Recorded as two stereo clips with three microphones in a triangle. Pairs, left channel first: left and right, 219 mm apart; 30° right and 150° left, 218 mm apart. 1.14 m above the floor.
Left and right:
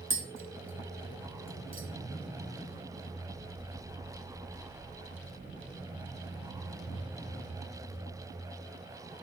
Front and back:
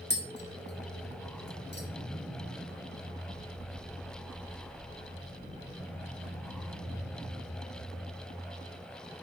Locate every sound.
0.1 s tapping: 70° right, 1.7 m